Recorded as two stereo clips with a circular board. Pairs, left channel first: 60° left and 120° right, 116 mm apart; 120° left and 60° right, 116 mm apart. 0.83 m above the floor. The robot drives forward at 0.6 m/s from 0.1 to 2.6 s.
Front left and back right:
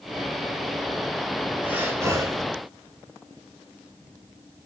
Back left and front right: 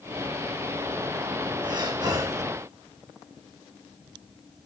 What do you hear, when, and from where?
1.6 s breathing: 50° right, 1.1 m; by 2.4 s 95° right, 1.0 m